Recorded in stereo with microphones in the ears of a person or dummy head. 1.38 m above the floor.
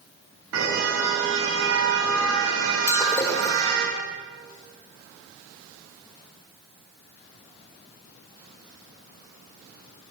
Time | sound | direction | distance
0.5 | a car horn | 80° right | 8 m
2.9 | breaking glass | 15° left (ahead or behind) | 4.5 m